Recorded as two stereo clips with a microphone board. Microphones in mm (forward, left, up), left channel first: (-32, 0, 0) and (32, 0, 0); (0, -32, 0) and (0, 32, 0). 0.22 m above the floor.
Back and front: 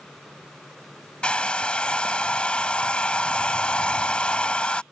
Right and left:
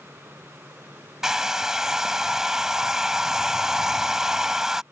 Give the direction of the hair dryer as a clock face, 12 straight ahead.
7 o'clock.